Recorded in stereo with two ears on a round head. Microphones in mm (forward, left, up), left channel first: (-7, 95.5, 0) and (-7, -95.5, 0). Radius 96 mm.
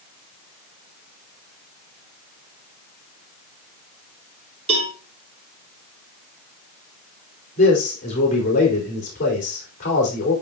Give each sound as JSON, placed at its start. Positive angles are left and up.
{"t": 4.7, "sound": "a cowbell", "side_deg": -30, "distance_m": 3.5}
{"t": 7.6, "sound": "a man speaking", "side_deg": 35, "distance_m": 4.5}